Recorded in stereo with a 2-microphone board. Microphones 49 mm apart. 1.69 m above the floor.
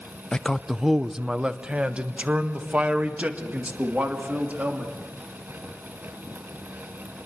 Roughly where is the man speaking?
Centre.